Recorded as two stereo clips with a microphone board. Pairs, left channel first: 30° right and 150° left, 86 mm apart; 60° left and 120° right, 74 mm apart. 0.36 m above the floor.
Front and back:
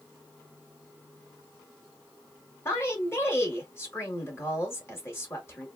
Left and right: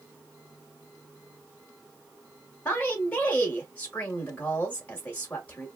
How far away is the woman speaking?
About 1.0 m.